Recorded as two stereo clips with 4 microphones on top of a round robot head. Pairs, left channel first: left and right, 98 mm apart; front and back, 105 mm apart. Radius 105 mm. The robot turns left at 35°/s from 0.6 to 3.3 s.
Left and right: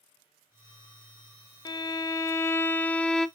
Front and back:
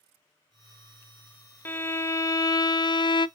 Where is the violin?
65° left, 0.5 m; by 3.3 s 10° left, 0.5 m.